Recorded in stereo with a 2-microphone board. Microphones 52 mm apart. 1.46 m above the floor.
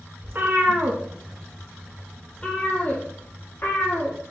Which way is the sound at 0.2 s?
45° right (ahead or behind).